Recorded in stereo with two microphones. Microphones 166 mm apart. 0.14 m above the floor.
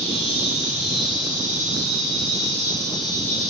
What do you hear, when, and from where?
0.0 s an insect: 45° right (ahead or behind), 1.2 m